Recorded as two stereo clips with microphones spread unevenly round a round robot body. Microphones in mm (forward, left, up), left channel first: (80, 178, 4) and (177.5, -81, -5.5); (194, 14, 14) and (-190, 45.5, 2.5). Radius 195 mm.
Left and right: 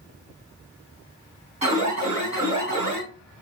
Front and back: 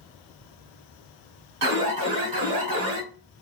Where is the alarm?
145° right, 3.5 m.